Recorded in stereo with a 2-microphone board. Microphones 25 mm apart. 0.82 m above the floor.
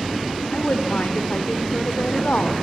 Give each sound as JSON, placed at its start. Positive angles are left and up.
{"t": 0.5, "sound": "a woman speaking", "side_deg": 70, "distance_m": 2.5}